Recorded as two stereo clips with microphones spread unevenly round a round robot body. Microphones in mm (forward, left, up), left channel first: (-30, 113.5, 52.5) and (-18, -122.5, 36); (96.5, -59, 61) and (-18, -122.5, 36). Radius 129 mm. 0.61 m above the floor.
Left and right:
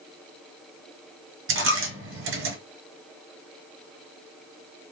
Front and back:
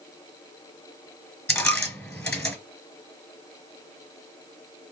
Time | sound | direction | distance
1.5 | a dropped coin | 45° right | 1.4 m